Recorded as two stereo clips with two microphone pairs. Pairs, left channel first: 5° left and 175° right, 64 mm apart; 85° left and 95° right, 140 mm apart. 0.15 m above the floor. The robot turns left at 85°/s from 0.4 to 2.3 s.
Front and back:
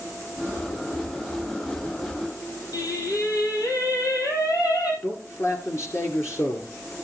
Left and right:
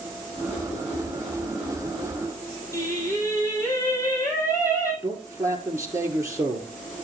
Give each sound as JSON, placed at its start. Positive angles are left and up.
{"t": 2.7, "sound": "singing", "azimuth_deg": 20, "distance_m": 4.0}
{"t": 5.0, "sound": "a man speaking", "azimuth_deg": -30, "distance_m": 2.5}